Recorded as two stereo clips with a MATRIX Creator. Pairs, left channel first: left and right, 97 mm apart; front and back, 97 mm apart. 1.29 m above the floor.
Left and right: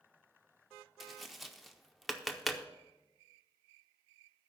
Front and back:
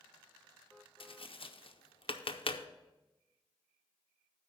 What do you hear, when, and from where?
1.0 s tapping: straight ahead, 0.5 m